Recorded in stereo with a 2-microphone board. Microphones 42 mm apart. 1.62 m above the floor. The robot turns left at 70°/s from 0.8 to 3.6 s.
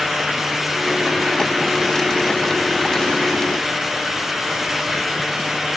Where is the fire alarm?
No fire alarm in this recording.